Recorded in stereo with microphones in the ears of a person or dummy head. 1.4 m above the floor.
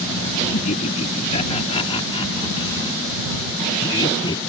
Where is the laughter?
40° left (ahead or behind); by 4.4 s 25° left (ahead or behind).